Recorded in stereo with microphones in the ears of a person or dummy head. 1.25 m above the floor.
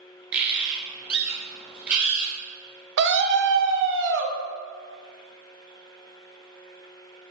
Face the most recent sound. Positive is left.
turn(degrees=-55)  # may be behind; listen again after turning